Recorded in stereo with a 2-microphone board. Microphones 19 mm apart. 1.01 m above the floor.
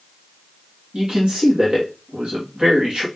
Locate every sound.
0.9 s a man speaking: 60° right (ahead or behind), 1.8 m